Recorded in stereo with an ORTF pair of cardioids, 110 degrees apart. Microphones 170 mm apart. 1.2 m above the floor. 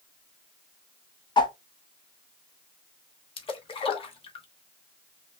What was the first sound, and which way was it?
A whoosh, 25° left.